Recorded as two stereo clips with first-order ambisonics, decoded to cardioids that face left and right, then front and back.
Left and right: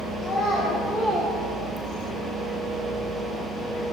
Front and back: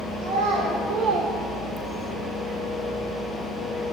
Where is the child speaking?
Straight behind, 2.5 m; by 2.1 s 50° right, 0.6 m.